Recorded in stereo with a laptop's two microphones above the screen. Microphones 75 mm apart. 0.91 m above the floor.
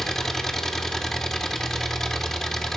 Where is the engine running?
5° left (ahead or behind), 1.3 m.